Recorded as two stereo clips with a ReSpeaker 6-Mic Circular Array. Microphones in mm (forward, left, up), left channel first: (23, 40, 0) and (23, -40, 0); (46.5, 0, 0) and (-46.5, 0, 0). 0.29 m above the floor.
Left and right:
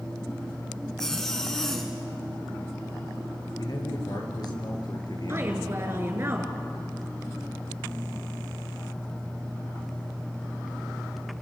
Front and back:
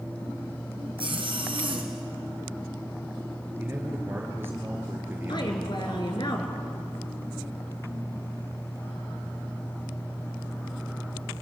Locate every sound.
1.0 s a zipper: 170° left, 3.5 m
3.6 s a man speaking: 115° left, 5 m
5.3 s a woman speaking: 35° right, 4 m